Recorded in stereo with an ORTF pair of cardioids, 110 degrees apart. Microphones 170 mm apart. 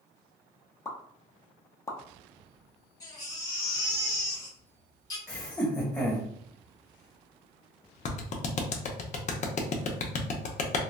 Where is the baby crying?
20° left, 1.4 m.